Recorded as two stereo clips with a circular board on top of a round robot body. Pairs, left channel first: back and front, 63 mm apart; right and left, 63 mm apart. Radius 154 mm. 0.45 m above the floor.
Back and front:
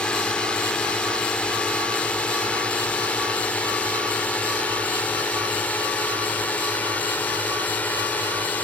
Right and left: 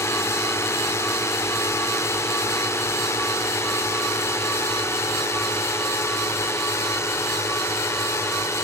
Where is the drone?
110° right; by 8.6 s 120° right.